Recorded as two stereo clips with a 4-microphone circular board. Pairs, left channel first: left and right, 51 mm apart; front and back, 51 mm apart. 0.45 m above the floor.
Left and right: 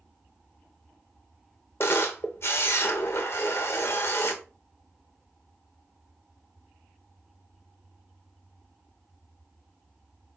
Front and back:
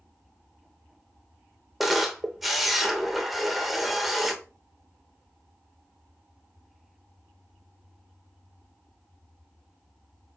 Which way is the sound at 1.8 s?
95° left.